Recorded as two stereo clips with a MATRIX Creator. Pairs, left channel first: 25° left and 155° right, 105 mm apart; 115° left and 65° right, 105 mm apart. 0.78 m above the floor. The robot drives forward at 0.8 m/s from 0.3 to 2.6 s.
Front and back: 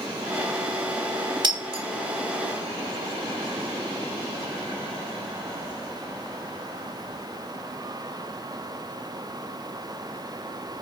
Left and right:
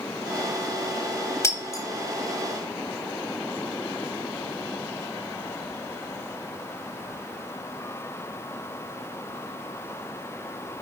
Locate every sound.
1.4 s breaking glass: 170° left, 1.0 m